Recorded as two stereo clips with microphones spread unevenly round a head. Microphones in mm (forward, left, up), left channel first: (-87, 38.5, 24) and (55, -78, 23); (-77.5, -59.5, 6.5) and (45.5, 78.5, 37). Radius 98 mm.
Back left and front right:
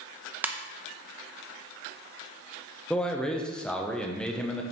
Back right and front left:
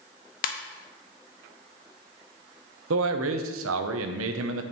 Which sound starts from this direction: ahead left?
A man speaking, at 2.9 s.